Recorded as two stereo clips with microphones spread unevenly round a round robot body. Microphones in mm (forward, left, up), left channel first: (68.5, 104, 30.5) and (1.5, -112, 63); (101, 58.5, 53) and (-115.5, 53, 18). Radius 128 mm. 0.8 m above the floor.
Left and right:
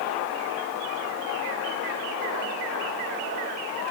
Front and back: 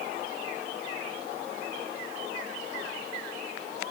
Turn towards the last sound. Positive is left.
No sound to turn to.